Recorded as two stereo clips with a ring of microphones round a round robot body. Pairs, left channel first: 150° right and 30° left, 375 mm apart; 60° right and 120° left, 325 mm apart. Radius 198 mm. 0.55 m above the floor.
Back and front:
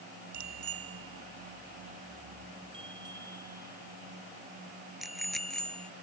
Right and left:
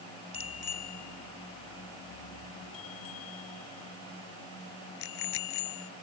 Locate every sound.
0.3 s a bicycle bell: 15° right; by 5.9 s 60° right